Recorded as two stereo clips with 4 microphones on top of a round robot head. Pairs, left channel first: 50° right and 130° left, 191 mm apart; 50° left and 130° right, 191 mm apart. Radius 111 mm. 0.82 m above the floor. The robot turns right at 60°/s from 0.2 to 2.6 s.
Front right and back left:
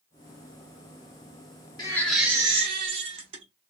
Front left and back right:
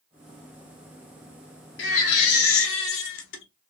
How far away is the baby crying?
About 0.5 m.